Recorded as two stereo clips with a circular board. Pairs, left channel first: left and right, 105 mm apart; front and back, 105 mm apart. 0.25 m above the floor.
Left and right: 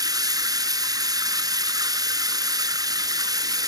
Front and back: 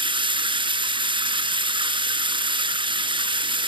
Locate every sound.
0.0 s running water: 145° right, 0.8 m